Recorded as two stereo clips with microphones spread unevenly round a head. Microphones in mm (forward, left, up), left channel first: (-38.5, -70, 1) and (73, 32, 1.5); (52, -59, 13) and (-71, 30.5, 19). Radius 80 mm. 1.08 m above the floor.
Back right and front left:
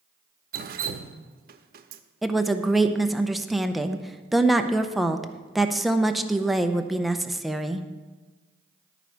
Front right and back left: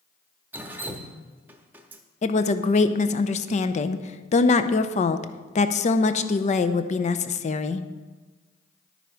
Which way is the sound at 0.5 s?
65° left.